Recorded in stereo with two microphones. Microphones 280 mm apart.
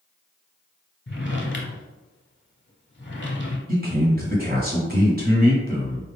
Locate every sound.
1.1 s a drawer: 40° left (ahead or behind), 0.8 m
3.7 s a man speaking: 35° right (ahead or behind), 1.3 m